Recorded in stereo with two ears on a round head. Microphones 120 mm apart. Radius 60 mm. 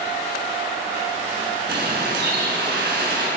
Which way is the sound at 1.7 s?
80° right.